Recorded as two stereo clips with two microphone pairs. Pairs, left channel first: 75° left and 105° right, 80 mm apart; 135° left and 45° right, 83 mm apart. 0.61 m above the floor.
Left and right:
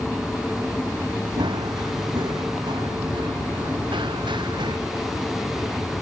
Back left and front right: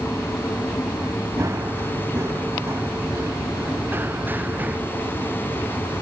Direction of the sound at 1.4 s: 95° right.